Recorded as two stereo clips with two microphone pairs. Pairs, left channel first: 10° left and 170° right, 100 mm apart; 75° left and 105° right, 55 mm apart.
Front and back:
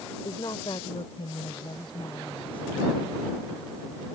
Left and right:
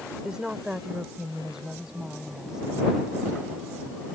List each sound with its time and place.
0.2 s a woman speaking: 35° right; by 4.0 s 25° right